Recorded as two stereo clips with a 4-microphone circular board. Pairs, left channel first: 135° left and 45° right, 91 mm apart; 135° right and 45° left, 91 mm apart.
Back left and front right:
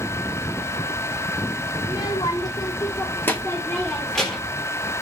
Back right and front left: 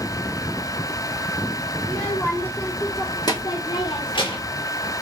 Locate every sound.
1.8 s a child speaking: 145° left, 1.1 m; by 4.6 s 135° right, 1.4 m